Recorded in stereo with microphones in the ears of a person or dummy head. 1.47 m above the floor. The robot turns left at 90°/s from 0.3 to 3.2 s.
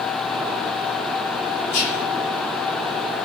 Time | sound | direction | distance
1.7 | whispering | 125° left | 5 m